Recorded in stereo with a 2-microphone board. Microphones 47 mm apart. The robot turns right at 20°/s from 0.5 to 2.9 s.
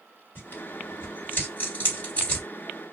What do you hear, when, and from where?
0.3 s tearing paper: 45° left (ahead or behind), 1.8 m; by 2.5 s 25° left (ahead or behind), 1.8 m